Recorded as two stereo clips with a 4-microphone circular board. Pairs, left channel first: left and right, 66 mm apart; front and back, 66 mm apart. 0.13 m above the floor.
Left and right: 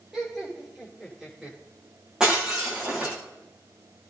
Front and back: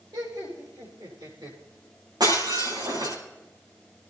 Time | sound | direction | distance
0.1 | laughter | 175° right | 10 m
2.2 | breaking glass | 170° right | 10 m